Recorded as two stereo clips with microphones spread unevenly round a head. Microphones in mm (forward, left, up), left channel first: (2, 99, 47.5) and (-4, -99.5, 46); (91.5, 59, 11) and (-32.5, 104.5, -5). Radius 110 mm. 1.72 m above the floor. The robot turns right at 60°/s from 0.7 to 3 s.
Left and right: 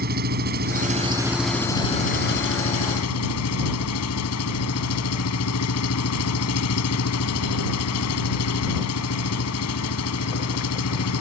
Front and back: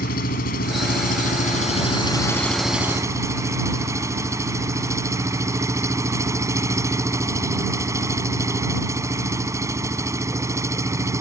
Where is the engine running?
45° right; by 11.2 s 90° left.